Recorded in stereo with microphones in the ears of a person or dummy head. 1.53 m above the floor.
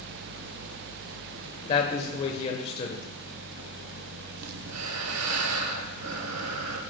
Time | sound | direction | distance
1.7 | a man speaking | 30° left (ahead or behind) | 1.0 m
4.4 | breathing | 85° right | 0.9 m